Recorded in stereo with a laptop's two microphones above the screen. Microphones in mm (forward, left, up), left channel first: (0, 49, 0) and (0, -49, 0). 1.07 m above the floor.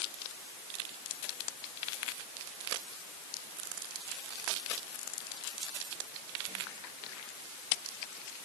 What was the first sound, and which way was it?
Only background noise.